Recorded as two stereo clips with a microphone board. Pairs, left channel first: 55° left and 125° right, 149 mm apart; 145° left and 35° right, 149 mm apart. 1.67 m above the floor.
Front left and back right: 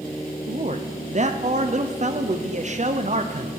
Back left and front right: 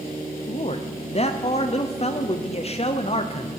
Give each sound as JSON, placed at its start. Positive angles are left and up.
{"t": 0.5, "sound": "a man speaking", "azimuth_deg": -165, "distance_m": 0.8}